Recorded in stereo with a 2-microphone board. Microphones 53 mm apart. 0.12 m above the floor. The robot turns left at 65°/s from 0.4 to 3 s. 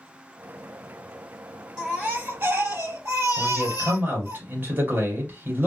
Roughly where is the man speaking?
Right.